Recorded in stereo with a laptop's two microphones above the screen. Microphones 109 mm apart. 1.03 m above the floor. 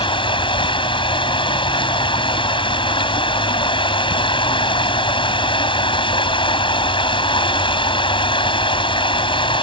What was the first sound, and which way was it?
Running water, 50° left (ahead or behind).